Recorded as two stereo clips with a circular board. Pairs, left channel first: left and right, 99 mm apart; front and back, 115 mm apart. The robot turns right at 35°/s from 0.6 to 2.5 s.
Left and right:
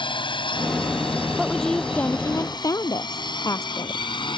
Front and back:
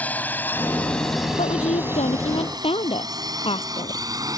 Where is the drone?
75° left; by 4.4 s 120° left.